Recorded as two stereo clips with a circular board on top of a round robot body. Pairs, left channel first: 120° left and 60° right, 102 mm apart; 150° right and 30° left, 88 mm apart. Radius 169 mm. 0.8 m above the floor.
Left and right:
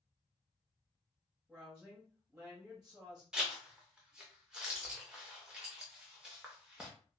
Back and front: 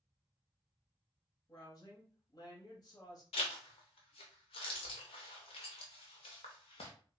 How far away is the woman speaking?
About 1.0 m.